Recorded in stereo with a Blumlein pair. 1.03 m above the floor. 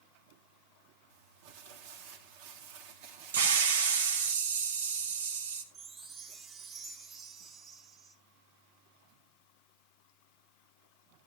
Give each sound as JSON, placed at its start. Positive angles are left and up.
{"t": 1.1, "sound": "crumpling", "azimuth_deg": -50, "distance_m": 1.9}
{"t": 3.3, "sound": "a hiss", "azimuth_deg": -65, "distance_m": 1.7}
{"t": 5.7, "sound": "a chime", "azimuth_deg": -25, "distance_m": 1.6}